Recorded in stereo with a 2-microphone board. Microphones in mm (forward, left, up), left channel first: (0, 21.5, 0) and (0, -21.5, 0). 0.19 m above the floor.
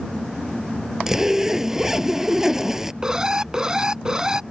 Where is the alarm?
15° right (ahead or behind).